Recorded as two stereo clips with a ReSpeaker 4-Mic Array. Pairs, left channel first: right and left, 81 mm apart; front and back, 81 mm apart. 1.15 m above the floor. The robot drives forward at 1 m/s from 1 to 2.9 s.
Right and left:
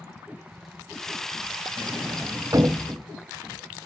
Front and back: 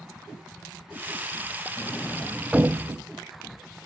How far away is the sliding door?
About 0.8 m.